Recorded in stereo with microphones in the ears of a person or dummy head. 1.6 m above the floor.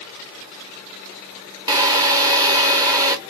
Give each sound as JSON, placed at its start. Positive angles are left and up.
{"t": 1.7, "sound": "a drill", "side_deg": -20, "distance_m": 1.0}